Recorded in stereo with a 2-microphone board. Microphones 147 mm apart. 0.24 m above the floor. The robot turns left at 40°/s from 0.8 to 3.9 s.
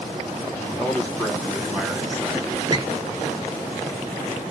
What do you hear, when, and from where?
0.6 s a man speaking: 15° left (ahead or behind), 1.0 m; by 2.6 s 20° right (ahead or behind), 1.0 m
2.7 s a squeak: 30° right (ahead or behind), 0.7 m; by 2.9 s 35° right (ahead or behind), 0.7 m